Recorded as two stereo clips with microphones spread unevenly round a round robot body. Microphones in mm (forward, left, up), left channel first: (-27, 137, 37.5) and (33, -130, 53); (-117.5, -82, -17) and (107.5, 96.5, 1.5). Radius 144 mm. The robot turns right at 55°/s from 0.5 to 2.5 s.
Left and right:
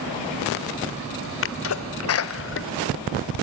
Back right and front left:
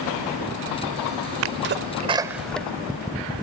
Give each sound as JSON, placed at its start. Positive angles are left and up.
{"t": 1.4, "sound": "a sneeze", "azimuth_deg": 75, "distance_m": 1.3}